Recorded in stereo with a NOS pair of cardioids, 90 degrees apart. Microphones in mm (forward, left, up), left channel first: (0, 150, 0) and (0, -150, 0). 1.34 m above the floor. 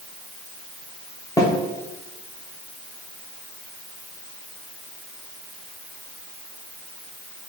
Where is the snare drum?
10° left, 0.7 m.